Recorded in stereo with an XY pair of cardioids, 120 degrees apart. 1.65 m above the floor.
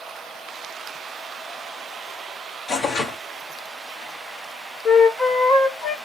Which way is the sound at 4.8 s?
45° left.